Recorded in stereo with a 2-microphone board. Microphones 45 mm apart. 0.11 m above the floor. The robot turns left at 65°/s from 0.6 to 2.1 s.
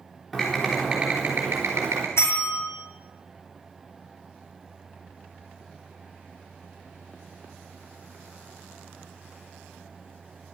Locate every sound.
0.3 s typing on a keyboard: 10° left, 3 m; by 2.1 s 85° right, 3 m
2.2 s a bell: 70° left (ahead or behind), 2.5 m